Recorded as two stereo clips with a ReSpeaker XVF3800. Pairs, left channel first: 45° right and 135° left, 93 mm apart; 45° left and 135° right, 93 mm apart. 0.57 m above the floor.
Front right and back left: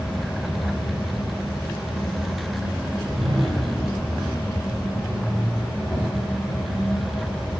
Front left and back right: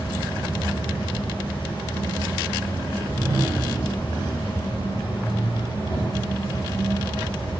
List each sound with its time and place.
0.0 s an insect: 50° left, 6.5 m
2.9 s a whoosh: 170° left, 3.5 m